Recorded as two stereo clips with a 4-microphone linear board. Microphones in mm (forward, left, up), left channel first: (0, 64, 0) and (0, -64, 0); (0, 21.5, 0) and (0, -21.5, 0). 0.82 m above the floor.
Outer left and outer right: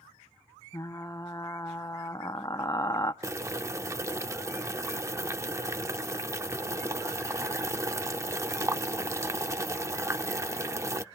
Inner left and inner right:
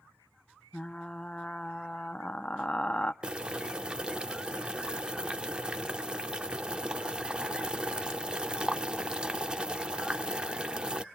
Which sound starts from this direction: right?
Boiling, at 3.2 s.